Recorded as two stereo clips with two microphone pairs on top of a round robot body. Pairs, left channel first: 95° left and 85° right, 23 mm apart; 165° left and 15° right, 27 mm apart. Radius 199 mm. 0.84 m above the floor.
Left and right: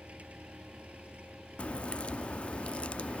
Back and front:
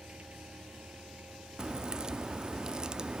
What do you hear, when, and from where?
0.0 s an engine running: 65° right
1.6 s a crack: 50° left